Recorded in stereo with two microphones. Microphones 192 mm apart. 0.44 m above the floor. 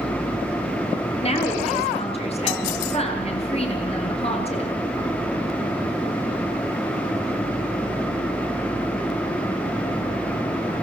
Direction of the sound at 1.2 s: 30° left (ahead or behind).